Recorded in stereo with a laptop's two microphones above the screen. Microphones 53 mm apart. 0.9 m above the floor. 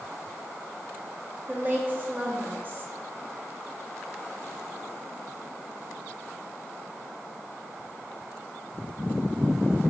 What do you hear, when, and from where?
1.5 s a woman speaking: 35° right (ahead or behind), 1.4 m